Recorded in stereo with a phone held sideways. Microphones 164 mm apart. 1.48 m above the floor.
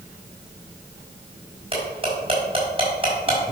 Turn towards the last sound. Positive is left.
turn(degrees=-35)  # may be behind; listen again after turning